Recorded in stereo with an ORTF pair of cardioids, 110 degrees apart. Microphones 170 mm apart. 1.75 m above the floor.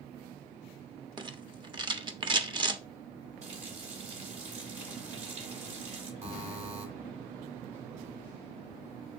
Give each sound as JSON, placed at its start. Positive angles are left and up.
{"t": 1.2, "sound": "a rattle", "azimuth_deg": -25, "distance_m": 1.2}
{"t": 3.4, "sound": "a running tap", "azimuth_deg": -45, "distance_m": 3.0}
{"t": 6.2, "sound": "a buzzer", "azimuth_deg": -40, "distance_m": 3.0}